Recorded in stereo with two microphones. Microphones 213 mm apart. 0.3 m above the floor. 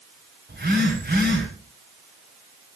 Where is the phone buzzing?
50° right (ahead or behind), 6 m.